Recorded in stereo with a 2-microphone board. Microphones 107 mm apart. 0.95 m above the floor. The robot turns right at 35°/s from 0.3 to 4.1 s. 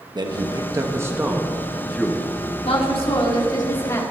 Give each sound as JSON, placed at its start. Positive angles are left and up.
{"t": 0.1, "sound": "a man speaking", "azimuth_deg": -55, "distance_m": 1.3}
{"t": 2.6, "sound": "a woman speaking", "azimuth_deg": 105, "distance_m": 2.0}